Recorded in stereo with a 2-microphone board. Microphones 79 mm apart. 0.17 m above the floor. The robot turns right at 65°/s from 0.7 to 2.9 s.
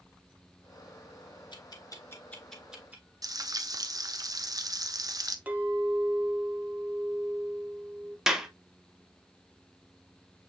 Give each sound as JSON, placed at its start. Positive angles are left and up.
{"t": 1.5, "sound": "ticking", "side_deg": 70, "distance_m": 1.0}
{"t": 3.2, "sound": "frying", "side_deg": -50, "distance_m": 0.5}
{"t": 5.5, "sound": "a clink", "side_deg": -20, "distance_m": 0.9}
{"t": 8.3, "sound": "a clap", "side_deg": -5, "distance_m": 0.8}